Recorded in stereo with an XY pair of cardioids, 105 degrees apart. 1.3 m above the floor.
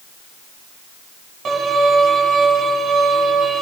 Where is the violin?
50° right, 8 m.